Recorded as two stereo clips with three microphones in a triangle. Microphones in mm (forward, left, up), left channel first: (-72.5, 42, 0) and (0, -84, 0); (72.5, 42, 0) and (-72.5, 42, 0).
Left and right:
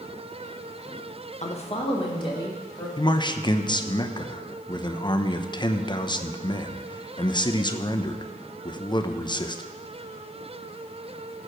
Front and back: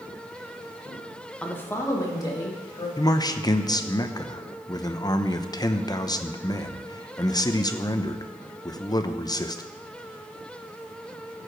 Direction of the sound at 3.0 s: 65° left.